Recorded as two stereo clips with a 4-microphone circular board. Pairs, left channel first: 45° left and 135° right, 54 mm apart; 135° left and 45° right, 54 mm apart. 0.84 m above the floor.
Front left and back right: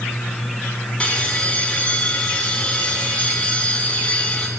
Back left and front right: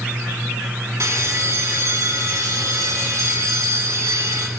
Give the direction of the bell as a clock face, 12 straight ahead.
1 o'clock.